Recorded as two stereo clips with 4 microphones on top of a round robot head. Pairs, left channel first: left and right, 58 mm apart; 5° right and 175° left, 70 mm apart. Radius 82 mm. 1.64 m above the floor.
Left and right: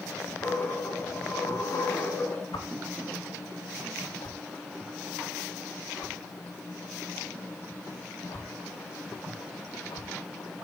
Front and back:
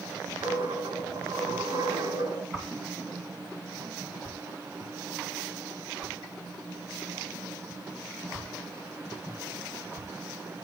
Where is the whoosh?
100° left, 2 m.